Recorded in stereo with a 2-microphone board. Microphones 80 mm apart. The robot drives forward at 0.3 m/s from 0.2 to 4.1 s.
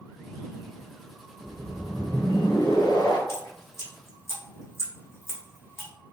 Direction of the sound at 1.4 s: 55° left (ahead or behind).